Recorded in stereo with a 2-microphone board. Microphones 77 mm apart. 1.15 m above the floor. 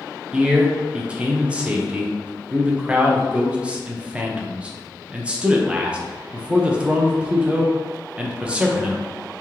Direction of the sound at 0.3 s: 15° right (ahead or behind).